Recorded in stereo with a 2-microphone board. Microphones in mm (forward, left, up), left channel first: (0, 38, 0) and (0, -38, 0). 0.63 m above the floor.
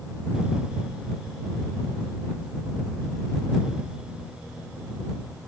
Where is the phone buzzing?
I don't hear a phone buzzing.